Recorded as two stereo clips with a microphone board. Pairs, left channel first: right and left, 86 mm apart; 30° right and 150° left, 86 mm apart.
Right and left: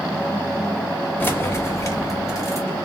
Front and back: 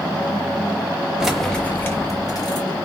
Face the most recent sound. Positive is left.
turn(degrees=-45)